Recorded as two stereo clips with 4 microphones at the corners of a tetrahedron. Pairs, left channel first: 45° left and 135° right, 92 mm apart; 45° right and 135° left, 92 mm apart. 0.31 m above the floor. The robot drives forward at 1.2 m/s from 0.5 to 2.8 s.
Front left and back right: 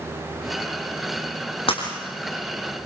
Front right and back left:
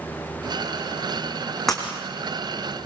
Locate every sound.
1.7 s breaking glass: 40° left, 4.5 m; by 1.8 s 45° left, 4.5 m